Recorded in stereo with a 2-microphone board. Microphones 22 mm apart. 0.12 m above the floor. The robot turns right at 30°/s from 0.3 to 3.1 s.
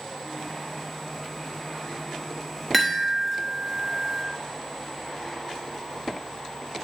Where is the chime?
Centre (ahead or behind), 1.1 m; by 4.2 s 5° left (ahead or behind), 1.1 m.